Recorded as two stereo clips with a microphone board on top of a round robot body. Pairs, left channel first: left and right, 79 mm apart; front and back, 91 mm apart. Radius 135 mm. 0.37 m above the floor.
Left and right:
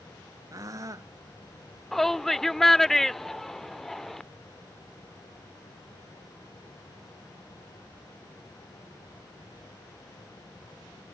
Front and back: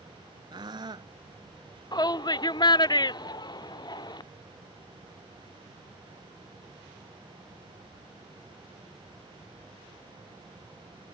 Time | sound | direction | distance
0.5 | a scream | 140° right | ?
1.9 | a shout | 5° left | ?